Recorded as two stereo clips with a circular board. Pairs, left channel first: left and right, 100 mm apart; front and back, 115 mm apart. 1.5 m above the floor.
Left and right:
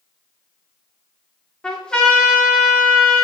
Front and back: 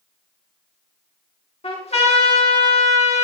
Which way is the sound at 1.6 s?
10° left.